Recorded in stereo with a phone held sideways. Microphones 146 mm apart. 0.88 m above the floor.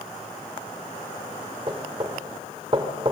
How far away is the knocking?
About 1.6 m.